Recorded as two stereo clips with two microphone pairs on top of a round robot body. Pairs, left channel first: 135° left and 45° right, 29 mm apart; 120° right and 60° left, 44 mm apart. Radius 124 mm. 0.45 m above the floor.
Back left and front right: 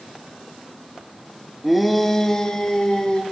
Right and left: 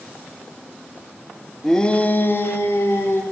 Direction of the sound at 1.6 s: Straight ahead.